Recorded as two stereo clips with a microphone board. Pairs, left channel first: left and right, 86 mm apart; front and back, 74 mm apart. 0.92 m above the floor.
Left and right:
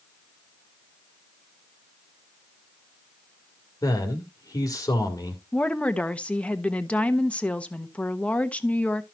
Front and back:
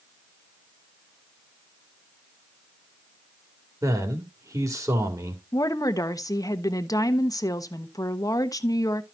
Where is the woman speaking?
15° left, 1.0 m.